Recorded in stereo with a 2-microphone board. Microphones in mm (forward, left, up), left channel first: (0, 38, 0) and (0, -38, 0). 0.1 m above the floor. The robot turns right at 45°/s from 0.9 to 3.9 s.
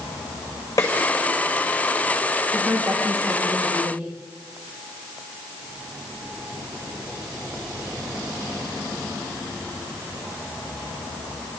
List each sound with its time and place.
0.8 s a snare drum: 45° left (ahead or behind), 6.5 m
2.5 s a woman speaking: 175° right, 6 m; by 4.1 s 115° right, 6 m